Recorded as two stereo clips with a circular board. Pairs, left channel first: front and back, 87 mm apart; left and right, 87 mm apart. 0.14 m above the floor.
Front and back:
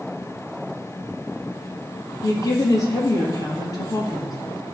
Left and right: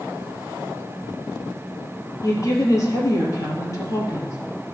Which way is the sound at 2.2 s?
45° left.